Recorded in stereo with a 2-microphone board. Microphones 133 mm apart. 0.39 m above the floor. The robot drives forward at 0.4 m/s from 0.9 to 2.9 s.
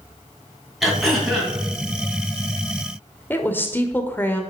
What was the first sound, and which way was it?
Throat clearing, centre (ahead or behind).